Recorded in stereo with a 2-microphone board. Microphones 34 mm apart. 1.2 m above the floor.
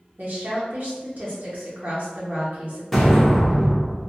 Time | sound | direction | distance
0.2 | a woman speaking | 55° right (ahead or behind) | 0.7 m
2.9 | an explosion | 5° left (ahead or behind) | 0.9 m